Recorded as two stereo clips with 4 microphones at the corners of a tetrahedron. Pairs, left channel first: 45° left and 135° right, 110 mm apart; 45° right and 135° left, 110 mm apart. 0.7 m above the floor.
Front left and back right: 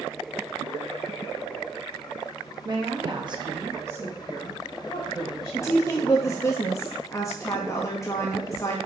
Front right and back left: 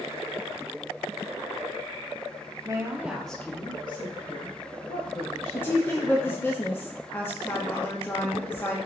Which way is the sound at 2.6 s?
175° right.